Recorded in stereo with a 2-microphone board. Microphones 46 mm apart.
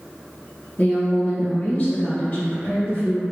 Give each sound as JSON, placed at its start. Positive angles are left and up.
{"t": 0.8, "sound": "a woman speaking", "side_deg": 35, "distance_m": 1.9}